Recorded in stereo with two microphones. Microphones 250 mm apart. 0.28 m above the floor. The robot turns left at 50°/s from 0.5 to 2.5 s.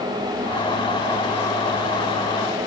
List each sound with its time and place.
Only background noise.